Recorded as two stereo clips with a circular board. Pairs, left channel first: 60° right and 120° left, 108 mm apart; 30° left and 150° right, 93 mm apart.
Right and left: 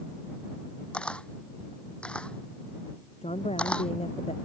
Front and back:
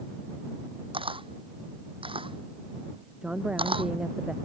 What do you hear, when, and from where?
0.9 s a camera shutter: 140° right
3.2 s a woman speaking: 70° right